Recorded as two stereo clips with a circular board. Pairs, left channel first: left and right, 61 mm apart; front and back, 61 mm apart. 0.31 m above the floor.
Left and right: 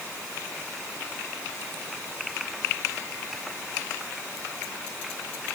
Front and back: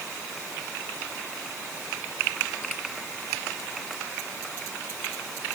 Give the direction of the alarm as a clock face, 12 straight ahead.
I don't hear an alarm.